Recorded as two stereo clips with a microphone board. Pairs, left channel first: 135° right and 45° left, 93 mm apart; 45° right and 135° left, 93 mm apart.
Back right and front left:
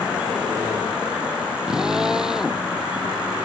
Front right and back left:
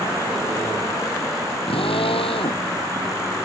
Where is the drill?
40° right.